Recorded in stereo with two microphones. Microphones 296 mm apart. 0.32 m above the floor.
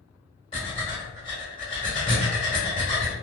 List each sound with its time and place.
0.5 s breathing: 15° left (ahead or behind), 1.2 m